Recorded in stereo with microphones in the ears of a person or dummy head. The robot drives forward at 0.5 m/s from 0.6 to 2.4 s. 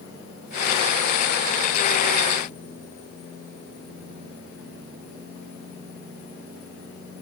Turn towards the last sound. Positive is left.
No sound to turn to.